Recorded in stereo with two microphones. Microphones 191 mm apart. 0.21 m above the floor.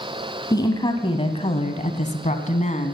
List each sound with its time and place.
0.5 s a woman speaking: 20° left (ahead or behind), 1.4 m; by 2.9 s 40° left (ahead or behind), 1.7 m